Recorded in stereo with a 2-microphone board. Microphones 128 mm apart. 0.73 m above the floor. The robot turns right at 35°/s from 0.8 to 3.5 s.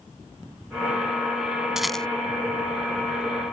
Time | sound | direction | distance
1.8 | a rattle | 5° right (ahead or behind) | ?